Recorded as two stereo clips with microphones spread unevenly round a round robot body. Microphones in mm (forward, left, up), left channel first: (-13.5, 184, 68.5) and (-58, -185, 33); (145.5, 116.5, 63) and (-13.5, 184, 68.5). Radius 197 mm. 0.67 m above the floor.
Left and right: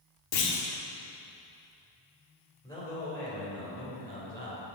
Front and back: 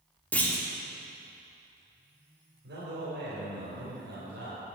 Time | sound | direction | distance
0.3 | a clunk | 60° left | 2.0 m
2.6 | a man speaking | 165° left | 3.5 m